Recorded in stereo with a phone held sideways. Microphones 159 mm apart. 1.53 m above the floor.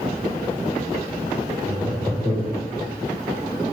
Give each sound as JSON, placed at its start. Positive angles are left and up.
{"t": 1.7, "sound": "laughter", "side_deg": -30, "distance_m": 4.5}